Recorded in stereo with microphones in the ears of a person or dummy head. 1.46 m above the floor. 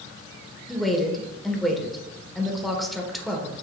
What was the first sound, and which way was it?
A woman speaking, centre (ahead or behind).